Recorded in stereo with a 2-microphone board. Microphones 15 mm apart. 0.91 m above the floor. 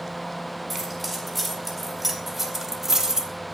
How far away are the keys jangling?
About 4.5 m.